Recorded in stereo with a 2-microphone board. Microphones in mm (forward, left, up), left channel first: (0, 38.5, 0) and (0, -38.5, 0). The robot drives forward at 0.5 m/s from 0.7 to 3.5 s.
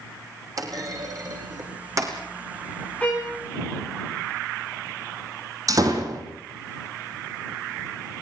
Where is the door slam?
50° right (ahead or behind), 4.5 m.